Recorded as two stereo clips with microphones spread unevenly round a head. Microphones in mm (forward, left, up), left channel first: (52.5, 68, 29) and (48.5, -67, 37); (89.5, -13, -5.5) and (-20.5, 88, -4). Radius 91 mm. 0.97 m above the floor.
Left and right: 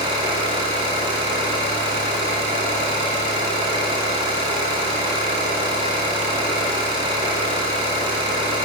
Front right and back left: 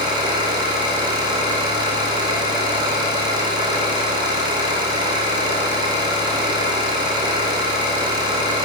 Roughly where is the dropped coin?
No dropped coin in this recording.